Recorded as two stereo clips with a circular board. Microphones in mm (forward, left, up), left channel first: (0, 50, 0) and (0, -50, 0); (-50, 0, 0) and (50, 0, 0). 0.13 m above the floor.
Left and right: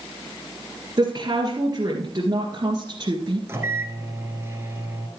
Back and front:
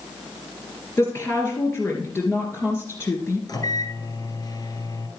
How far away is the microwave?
About 1.7 m.